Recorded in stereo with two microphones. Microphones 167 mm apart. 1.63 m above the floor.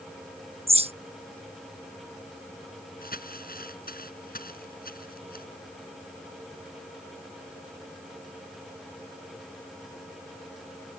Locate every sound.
0.7 s a bird: 35° right (ahead or behind)
3.0 s crumpling: 60° left (ahead or behind)